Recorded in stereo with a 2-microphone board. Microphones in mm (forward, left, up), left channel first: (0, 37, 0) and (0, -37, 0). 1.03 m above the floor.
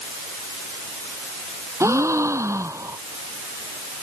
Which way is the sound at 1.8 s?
40° right (ahead or behind).